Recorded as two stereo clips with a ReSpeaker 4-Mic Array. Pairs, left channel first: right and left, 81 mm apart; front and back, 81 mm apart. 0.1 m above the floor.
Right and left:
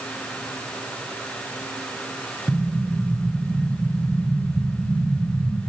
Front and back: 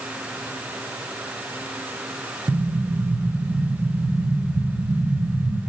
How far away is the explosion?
About 0.5 m.